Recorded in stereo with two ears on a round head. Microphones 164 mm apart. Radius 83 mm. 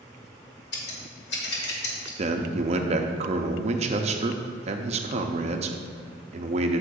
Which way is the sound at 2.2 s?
35° right (ahead or behind).